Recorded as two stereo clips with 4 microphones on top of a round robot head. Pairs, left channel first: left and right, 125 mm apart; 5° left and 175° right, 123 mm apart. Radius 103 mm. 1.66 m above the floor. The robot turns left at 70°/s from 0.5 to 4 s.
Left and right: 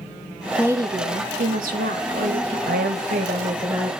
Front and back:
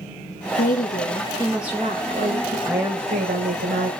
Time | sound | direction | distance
0.6 | a woman speaking | 15° right | 1.9 m
2.7 | a woman speaking | 90° right | 1.3 m